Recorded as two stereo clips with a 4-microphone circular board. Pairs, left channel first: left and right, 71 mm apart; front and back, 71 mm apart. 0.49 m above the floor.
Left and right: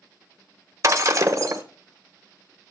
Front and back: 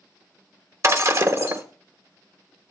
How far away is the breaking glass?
About 1.1 m.